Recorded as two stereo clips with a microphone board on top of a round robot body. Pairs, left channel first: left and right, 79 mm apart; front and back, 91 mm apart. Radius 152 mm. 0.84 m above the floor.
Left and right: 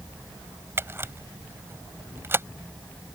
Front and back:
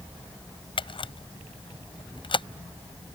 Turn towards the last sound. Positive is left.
turn(degrees=-30)